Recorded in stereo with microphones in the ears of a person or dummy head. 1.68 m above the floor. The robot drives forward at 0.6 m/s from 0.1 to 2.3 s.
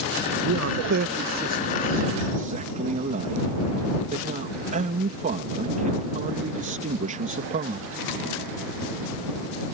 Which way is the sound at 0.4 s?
65° right (ahead or behind).